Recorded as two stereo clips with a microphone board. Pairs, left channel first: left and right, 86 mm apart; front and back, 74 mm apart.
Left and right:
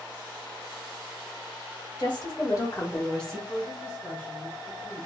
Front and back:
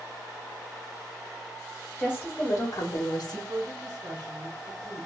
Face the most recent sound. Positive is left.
turn(degrees=160)